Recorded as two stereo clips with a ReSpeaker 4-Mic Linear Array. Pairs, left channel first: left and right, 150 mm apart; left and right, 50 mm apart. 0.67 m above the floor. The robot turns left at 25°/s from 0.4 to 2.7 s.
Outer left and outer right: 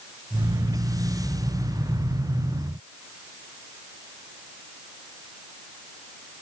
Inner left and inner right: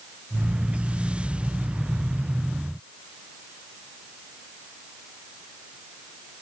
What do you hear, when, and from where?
Only background noise.